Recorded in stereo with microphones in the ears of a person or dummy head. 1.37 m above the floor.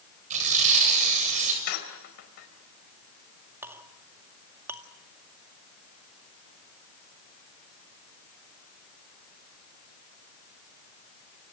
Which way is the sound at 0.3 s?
45° right (ahead or behind).